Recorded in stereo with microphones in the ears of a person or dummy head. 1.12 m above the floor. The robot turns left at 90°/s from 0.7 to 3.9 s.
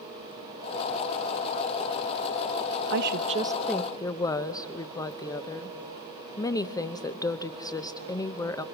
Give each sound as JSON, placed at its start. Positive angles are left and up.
{"t": 2.9, "sound": "a woman speaking", "azimuth_deg": -110, "distance_m": 0.7}